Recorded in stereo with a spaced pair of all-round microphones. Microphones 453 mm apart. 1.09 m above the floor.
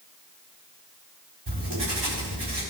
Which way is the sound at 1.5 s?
60° right (ahead or behind).